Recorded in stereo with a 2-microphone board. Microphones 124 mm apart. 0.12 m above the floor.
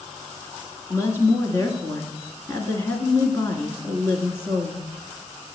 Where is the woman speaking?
20° left (ahead or behind), 1.2 m.